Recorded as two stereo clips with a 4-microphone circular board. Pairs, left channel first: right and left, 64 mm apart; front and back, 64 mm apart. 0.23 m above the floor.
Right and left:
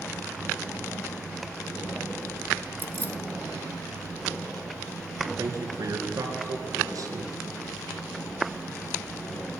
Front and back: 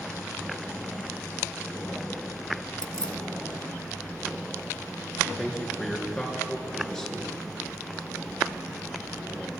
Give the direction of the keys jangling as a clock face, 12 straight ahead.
10 o'clock.